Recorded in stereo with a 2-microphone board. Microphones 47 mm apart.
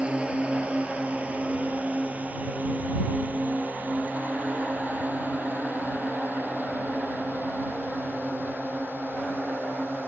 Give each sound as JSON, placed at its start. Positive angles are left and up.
{"t": 0.0, "sound": "a drone", "side_deg": -25}